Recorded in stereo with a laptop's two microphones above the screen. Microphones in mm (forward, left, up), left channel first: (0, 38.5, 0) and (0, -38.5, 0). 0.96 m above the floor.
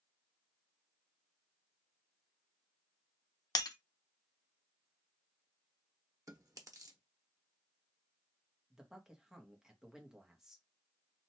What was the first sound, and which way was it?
Breaking glass, 55° left (ahead or behind).